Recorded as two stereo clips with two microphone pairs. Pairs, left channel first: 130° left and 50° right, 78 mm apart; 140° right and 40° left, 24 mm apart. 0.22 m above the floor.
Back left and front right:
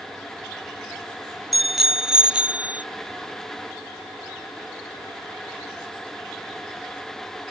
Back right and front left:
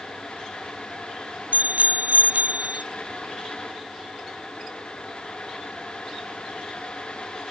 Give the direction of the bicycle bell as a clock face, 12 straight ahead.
11 o'clock.